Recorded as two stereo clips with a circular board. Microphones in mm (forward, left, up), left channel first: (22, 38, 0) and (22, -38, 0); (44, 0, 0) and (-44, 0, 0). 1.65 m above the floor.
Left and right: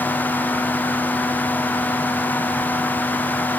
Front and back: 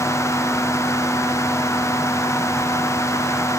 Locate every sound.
Only background noise.